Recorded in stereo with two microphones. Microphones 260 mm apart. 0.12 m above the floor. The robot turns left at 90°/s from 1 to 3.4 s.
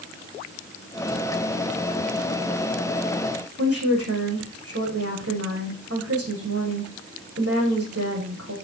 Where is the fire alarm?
No fire alarm in this recording.